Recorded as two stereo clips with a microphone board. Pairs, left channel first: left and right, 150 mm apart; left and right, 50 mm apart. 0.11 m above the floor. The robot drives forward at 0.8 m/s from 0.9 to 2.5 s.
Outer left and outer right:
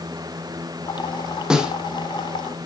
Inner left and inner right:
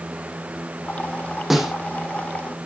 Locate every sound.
1.5 s a snare drum: 5° right (ahead or behind), 1.4 m